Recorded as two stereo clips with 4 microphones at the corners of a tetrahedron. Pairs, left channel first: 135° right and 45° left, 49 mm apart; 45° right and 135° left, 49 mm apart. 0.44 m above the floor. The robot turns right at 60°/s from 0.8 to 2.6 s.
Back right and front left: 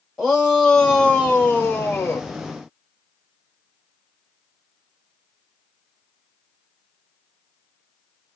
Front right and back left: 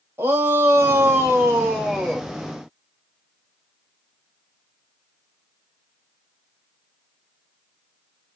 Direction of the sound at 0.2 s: 135° left.